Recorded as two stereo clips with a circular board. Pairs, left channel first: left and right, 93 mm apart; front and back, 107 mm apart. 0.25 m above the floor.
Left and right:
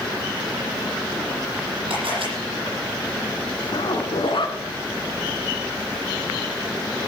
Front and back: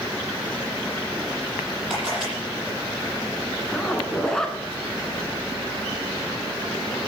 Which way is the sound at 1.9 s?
100° right.